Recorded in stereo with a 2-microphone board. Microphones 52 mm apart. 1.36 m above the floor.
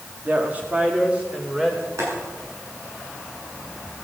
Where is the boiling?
70° right (ahead or behind), 7.5 m.